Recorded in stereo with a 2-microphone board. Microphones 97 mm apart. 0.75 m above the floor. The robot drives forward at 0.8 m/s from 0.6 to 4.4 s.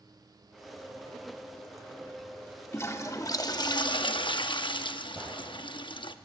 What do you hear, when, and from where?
2.7 s a toilet flushing: 30° left (ahead or behind), 1.4 m; by 6.2 s 55° left (ahead or behind), 0.8 m
5.2 s a gunshot: 5° right (ahead or behind), 7 m